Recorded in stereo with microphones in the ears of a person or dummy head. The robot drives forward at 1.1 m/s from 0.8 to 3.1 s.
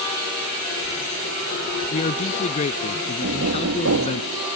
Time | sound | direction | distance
1.9 | a man speaking | 40° left (ahead or behind) | ?
3.2 | knocking | 85° right | ?